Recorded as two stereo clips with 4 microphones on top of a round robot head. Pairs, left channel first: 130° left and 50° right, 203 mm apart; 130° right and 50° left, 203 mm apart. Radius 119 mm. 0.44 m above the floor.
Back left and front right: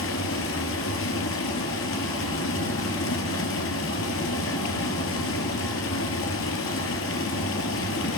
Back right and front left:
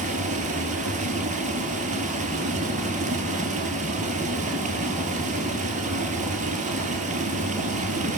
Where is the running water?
105° left, 4 m.